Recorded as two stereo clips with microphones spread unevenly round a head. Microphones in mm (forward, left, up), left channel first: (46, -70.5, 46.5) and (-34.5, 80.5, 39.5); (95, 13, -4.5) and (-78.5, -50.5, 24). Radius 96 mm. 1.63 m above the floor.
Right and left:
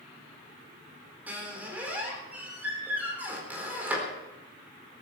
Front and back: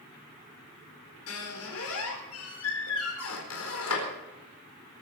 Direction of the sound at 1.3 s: 35° left.